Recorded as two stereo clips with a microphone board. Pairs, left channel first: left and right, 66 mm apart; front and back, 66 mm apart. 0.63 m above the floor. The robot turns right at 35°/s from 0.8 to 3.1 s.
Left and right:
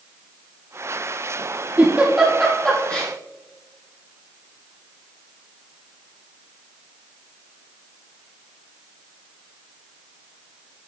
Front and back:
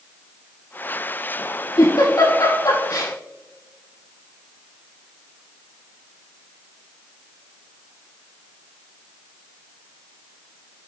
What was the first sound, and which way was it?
A giggle, 20° right.